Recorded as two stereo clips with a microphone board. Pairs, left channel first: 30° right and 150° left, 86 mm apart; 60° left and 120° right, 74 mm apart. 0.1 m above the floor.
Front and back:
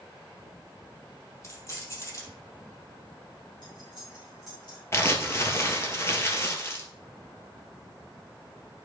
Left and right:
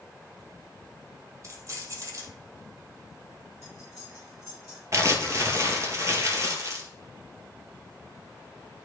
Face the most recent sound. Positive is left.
turn(degrees=-85)